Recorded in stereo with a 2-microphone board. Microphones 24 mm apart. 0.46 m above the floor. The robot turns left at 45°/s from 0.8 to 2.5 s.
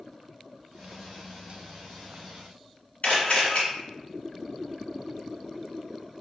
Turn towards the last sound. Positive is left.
turn(degrees=65)  # may be behind; listen again after turning